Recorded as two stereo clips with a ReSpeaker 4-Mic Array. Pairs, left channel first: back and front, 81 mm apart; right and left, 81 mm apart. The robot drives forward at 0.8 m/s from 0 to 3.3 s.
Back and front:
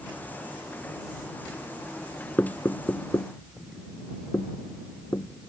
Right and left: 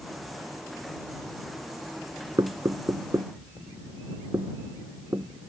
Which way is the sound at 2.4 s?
115° left.